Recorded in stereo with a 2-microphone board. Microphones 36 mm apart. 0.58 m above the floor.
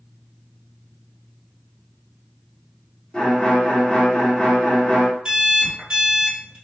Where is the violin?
25° left (ahead or behind), 1.1 m.